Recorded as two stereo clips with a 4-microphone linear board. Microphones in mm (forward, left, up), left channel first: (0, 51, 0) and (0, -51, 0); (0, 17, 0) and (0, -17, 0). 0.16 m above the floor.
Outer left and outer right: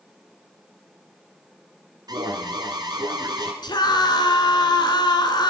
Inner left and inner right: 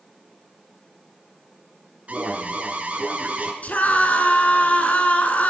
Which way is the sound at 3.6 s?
45° left (ahead or behind).